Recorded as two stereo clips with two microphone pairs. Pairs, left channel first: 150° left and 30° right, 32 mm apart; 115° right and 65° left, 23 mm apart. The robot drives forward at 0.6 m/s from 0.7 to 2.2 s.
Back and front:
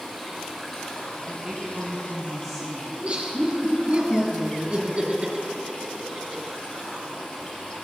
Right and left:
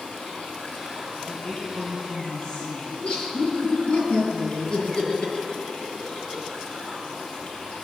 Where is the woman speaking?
95° right, 1.8 m; by 3.0 s 120° right, 1.9 m.